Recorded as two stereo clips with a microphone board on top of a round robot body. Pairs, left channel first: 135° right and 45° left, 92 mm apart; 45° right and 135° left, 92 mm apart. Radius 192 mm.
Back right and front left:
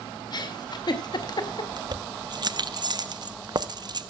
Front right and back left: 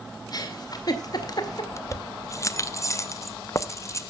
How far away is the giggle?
About 2 m.